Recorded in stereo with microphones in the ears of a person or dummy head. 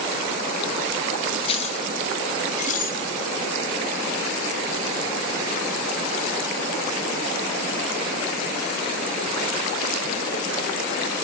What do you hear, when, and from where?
1.4 s keys jangling: 35° left (ahead or behind), 2 m; by 3.0 s 50° left (ahead or behind), 4 m